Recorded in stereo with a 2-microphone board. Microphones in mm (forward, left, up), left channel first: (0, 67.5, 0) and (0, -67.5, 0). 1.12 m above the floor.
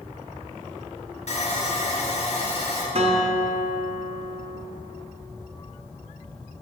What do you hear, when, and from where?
1.3 s sawing: 55° left (ahead or behind), 1.3 m
3.0 s a guitar: 50° right (ahead or behind), 0.8 m